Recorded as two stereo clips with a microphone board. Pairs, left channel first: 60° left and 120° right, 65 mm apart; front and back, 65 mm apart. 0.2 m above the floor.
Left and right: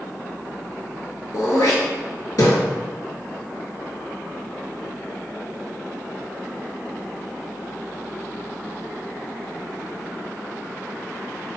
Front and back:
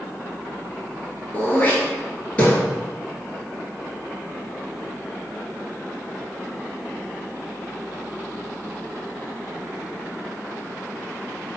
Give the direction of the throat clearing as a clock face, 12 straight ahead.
10 o'clock.